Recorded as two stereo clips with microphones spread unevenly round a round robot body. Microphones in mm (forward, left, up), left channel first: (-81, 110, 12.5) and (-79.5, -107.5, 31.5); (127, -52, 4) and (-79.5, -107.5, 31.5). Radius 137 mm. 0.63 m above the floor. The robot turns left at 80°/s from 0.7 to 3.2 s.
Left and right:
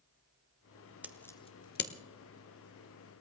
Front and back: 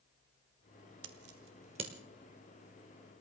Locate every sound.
1.0 s scissors: 175° right, 1.5 m; by 1.9 s 115° left, 1.5 m